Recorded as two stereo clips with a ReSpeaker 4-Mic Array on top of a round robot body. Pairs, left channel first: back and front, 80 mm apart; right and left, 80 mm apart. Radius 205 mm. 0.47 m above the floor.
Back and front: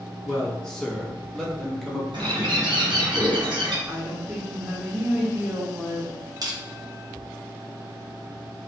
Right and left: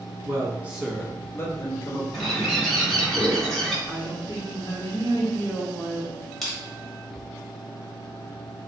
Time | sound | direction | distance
0.2 | a man speaking | 100° left | 0.8 m
2.1 | a bird | straight ahead | 1.0 m
3.9 | a woman speaking | 65° right | 1.0 m
6.4 | crushing | straight ahead | 1.1 m